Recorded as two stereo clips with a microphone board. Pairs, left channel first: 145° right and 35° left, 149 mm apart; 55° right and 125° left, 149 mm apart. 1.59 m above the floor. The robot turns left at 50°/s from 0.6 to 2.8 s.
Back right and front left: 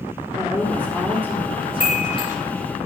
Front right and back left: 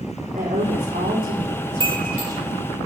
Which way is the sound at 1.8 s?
Straight behind.